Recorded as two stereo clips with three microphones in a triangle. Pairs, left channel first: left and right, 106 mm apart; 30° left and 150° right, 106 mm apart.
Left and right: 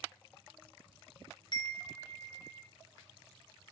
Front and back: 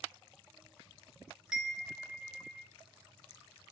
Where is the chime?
125° left, 0.6 m.